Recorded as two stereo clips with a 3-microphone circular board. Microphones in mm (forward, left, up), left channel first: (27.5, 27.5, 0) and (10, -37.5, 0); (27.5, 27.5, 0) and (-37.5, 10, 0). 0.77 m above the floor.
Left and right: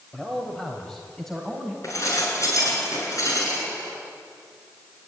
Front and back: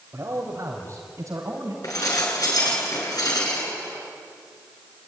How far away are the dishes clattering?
About 7 m.